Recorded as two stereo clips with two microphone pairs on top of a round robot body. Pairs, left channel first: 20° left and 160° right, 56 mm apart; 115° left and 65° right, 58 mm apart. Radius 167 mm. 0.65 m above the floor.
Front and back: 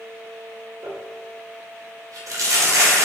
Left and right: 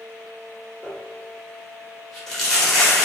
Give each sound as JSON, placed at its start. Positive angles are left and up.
{"t": 0.8, "sound": "crumpling", "azimuth_deg": -165, "distance_m": 1.3}